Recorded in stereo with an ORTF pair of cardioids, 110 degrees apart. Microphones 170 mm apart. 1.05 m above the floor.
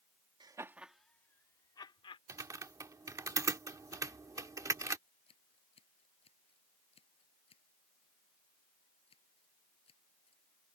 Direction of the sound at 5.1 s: 35° left.